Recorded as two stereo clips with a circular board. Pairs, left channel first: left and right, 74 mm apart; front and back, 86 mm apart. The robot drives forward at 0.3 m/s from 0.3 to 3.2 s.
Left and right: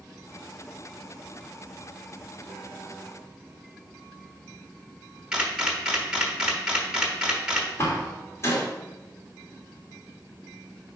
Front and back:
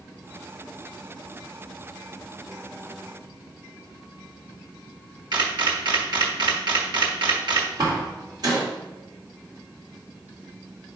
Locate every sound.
5.3 s a camera shutter: 165° right, 1.2 m
7.8 s a door slam: 145° left, 2.0 m